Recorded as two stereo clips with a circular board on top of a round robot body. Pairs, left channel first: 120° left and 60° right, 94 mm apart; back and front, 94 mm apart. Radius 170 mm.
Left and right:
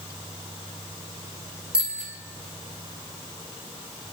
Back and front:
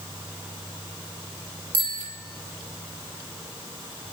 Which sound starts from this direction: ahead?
A bicycle bell, at 1.7 s.